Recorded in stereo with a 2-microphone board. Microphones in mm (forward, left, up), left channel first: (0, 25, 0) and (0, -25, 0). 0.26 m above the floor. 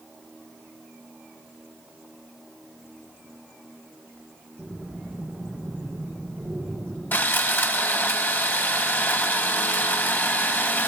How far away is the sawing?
About 1.1 m.